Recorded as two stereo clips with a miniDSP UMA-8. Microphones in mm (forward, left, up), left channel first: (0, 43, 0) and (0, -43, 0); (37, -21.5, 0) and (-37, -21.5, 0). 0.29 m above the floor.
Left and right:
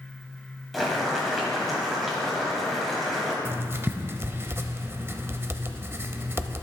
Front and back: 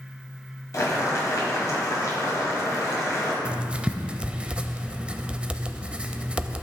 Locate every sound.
0.7 s boiling: straight ahead, 1.9 m
3.5 s writing: 120° right, 0.5 m